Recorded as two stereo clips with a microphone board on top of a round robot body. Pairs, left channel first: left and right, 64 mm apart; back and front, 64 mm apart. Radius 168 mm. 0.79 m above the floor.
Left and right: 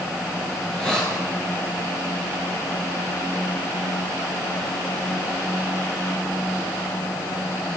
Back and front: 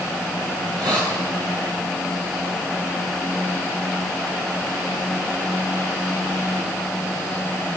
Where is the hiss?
10° left, 7 m.